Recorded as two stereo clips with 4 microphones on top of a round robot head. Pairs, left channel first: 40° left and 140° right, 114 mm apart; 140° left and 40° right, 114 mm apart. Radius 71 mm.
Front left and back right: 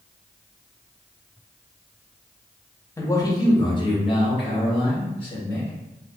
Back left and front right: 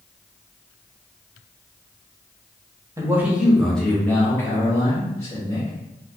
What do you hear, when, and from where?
3.0 s a man speaking: 5° right, 0.9 m; by 5.7 s 85° left, 2.5 m